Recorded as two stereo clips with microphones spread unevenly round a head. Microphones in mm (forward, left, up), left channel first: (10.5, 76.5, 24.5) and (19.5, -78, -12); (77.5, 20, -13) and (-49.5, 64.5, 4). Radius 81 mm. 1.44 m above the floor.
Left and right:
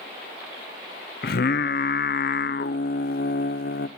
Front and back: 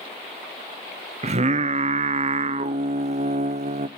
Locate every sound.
1.2 s singing: 125° left, 0.8 m